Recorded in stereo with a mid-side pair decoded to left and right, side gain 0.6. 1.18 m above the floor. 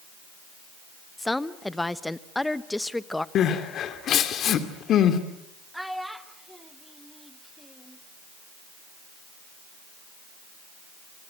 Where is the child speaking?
Straight ahead, 2.5 m.